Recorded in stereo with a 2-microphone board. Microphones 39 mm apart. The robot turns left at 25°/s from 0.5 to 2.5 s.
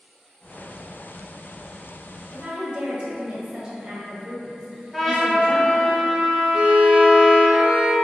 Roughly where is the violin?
Right.